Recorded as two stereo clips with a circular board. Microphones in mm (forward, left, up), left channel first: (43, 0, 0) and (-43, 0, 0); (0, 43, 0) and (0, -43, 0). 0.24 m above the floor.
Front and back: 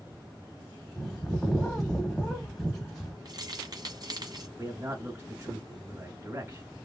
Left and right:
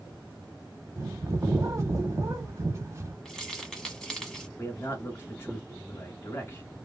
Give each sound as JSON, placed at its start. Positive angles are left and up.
{"t": 1.0, "sound": "a bird", "azimuth_deg": -85, "distance_m": 1.0}
{"t": 3.2, "sound": "keys jangling", "azimuth_deg": 175, "distance_m": 1.5}
{"t": 4.6, "sound": "a man speaking", "azimuth_deg": 135, "distance_m": 1.2}